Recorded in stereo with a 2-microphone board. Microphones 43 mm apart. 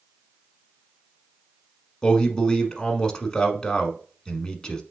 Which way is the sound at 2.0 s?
20° left (ahead or behind).